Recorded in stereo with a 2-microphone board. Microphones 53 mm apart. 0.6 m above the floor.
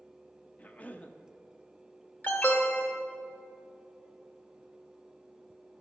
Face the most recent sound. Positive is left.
turn(degrees=35)  # may be behind; listen again after turning